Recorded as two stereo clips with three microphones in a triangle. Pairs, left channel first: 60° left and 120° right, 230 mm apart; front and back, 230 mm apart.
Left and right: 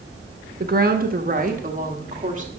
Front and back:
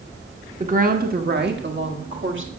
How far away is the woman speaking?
About 1.3 m.